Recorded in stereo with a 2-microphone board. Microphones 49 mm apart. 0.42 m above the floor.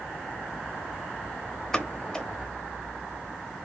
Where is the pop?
15° left (ahead or behind), 0.7 m.